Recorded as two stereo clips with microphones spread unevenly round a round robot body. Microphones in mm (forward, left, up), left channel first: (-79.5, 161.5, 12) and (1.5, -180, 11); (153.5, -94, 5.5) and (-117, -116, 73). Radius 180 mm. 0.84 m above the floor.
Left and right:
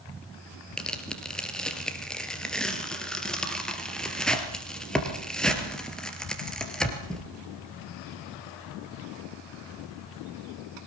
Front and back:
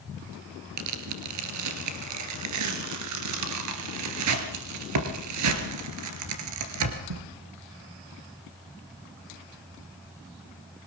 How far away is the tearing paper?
About 3 m.